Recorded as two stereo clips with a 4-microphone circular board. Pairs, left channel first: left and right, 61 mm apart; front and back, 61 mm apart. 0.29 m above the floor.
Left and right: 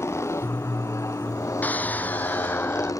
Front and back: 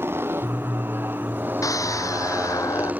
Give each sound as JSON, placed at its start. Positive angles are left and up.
{"t": 0.0, "sound": "a motorcycle", "azimuth_deg": 130}
{"t": 1.6, "sound": "a scream", "azimuth_deg": 25}